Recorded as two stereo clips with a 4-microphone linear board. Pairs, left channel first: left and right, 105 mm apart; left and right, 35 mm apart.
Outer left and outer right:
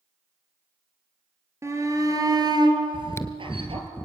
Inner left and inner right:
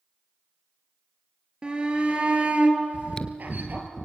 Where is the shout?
25° right (ahead or behind), 4 m; by 3.9 s 60° right (ahead or behind), 4.5 m.